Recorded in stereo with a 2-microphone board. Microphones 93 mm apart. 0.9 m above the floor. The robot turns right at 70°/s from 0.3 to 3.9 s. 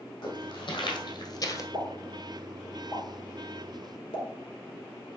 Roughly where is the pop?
Right.